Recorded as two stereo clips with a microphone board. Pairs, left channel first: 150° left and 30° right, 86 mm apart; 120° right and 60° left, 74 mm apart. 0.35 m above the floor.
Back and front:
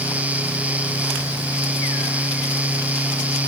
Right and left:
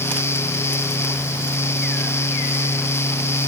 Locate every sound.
Only background noise.